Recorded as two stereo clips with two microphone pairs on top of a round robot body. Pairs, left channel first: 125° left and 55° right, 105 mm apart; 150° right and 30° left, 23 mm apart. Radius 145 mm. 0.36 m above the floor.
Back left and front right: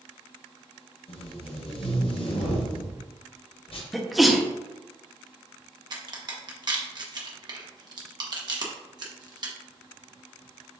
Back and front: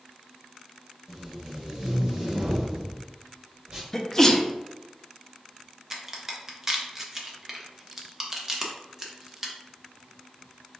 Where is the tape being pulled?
100° left, 1.0 m.